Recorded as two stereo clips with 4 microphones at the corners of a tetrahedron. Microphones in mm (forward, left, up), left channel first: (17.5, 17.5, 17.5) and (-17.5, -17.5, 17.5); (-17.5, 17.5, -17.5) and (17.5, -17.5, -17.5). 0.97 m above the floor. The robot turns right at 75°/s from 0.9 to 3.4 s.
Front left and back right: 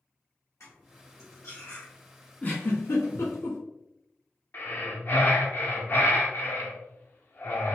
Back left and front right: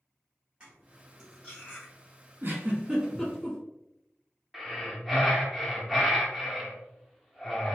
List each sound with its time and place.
0.6 s cutlery clinking: 25° left, 1.2 m; by 1.9 s 95° left, 1.2 m
2.4 s a giggle: 15° right, 1.0 m; by 3.6 s 55° left, 1.0 m
4.5 s breathing: 40° left, 0.6 m